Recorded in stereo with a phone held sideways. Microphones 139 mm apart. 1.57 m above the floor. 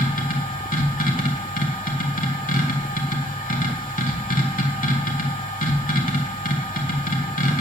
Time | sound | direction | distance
0.0 | a machine running | 80° left | 2 m